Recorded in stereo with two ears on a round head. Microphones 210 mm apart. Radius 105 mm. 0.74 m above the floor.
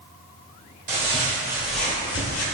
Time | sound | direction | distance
0.9 | footsteps | 30° right (ahead or behind) | 1.3 m